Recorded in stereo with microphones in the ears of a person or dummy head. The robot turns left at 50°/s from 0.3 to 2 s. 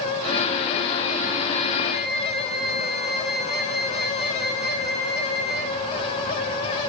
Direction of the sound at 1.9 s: 50° right (ahead or behind).